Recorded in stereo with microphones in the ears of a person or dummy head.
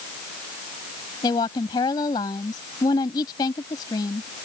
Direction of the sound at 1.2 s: 25° left (ahead or behind).